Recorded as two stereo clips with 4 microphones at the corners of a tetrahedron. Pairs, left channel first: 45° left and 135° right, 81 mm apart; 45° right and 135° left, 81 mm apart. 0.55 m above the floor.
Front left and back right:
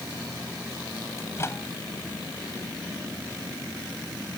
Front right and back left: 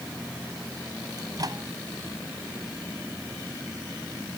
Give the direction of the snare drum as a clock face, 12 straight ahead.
I don't hear a snare drum.